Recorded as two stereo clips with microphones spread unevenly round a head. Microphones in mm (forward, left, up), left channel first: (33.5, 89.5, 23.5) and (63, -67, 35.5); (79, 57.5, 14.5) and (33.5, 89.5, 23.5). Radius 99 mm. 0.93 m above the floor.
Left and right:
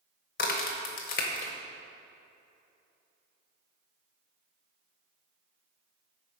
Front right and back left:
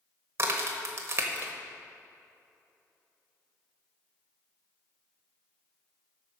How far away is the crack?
About 0.9 m.